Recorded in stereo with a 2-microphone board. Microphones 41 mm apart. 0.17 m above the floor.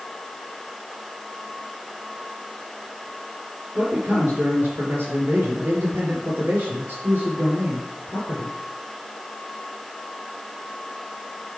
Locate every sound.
3.8 s a man speaking: 55° right (ahead or behind), 3.5 m